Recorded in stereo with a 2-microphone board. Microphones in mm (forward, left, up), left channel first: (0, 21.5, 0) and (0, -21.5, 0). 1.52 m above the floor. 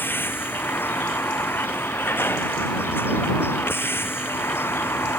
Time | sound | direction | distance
0.0 | a vehicle | 55° left (ahead or behind) | ?